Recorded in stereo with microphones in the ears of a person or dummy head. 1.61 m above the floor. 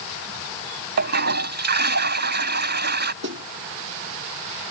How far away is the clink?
I don't hear a clink.